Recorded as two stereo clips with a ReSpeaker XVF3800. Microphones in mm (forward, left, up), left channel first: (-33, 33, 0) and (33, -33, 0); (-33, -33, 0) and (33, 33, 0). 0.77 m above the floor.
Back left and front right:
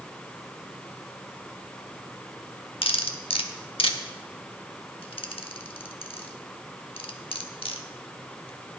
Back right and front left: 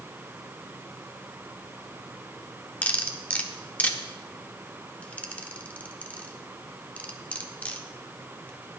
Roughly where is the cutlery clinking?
Behind left.